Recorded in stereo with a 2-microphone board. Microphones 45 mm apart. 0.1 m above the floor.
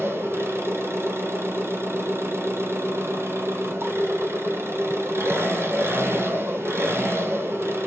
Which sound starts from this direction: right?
An engine running, at 0.0 s.